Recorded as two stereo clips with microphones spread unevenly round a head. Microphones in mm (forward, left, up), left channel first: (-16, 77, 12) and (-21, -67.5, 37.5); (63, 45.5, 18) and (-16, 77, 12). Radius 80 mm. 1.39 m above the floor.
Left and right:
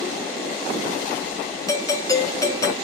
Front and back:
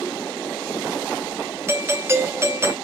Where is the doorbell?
125° left, 0.6 m.